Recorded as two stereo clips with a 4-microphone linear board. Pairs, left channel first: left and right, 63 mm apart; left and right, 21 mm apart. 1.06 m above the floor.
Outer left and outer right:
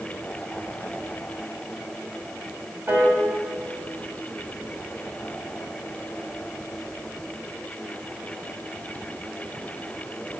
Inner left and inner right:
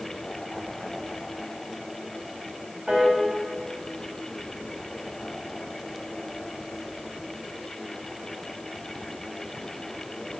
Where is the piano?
40° right (ahead or behind), 1.6 m.